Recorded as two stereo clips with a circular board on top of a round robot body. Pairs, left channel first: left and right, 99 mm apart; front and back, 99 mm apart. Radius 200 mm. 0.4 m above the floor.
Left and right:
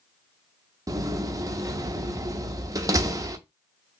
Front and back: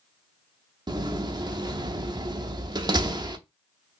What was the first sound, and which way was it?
A door slam, 140° right.